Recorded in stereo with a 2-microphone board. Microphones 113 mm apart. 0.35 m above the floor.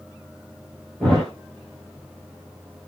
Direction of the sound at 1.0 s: 5° left (ahead or behind).